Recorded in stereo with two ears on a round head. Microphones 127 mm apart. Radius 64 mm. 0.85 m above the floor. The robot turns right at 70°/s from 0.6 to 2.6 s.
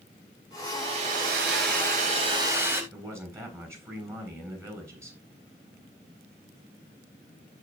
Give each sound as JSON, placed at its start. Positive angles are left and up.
{"t": 0.7, "sound": "a hair dryer", "azimuth_deg": -150, "distance_m": 4.0}
{"t": 2.9, "sound": "a man speaking", "side_deg": -20, "distance_m": 7.0}